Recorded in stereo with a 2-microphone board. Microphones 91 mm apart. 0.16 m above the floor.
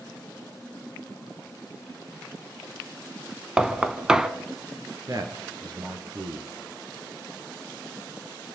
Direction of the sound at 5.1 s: 45° right (ahead or behind).